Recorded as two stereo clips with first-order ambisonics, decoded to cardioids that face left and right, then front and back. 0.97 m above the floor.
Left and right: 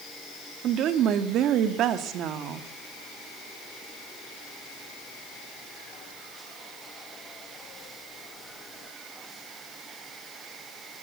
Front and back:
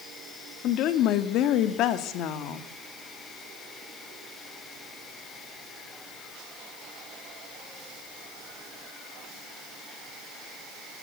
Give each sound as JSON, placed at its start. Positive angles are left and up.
{"t": 0.6, "sound": "a woman speaking", "azimuth_deg": -40, "distance_m": 1.7}